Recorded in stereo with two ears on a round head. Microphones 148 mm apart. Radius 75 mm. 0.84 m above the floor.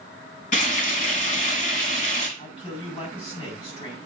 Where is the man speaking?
40° left (ahead or behind), 5.5 m.